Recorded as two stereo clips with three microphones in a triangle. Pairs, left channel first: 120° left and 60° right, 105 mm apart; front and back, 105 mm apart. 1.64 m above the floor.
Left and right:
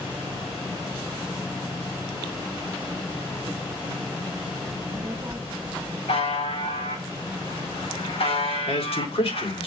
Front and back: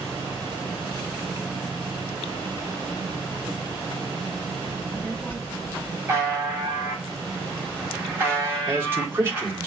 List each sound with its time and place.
4.7 s a child speaking: 65° right, 0.9 m
6.1 s a buzzer: 110° left, 5.5 m
8.7 s a man speaking: 115° left, 3.5 m